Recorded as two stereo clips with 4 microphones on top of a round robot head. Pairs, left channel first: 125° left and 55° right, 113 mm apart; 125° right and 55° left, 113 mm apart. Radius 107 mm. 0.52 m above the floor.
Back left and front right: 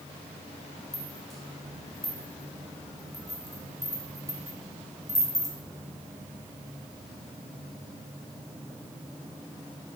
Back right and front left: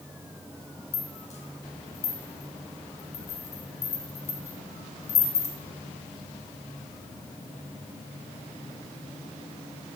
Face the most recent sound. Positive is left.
turn(degrees=-145)